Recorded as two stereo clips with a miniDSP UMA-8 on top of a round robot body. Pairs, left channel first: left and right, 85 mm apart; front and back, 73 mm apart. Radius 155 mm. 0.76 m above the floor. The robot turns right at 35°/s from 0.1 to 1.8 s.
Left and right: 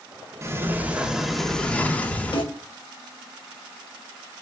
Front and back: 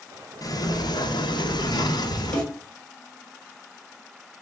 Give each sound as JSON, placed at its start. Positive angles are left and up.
{"t": 0.4, "sound": "a sliding door", "azimuth_deg": -30, "distance_m": 0.7}
{"t": 2.3, "sound": "a snare drum", "azimuth_deg": 80, "distance_m": 1.8}